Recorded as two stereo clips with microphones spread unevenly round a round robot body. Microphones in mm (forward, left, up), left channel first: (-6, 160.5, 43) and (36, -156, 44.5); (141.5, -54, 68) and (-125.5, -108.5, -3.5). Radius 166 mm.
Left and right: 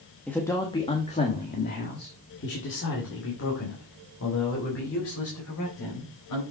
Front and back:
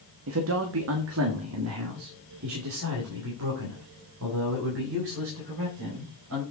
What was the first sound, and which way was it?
A man speaking, 175° right.